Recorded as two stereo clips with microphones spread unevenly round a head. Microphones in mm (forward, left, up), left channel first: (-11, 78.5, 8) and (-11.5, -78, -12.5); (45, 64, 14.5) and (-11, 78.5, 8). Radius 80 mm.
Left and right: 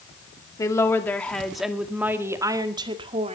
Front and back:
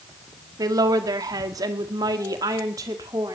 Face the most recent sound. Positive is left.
turn(degrees=-145)